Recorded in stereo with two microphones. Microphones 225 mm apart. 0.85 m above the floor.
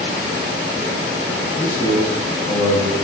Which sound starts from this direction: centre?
A man speaking, at 1.6 s.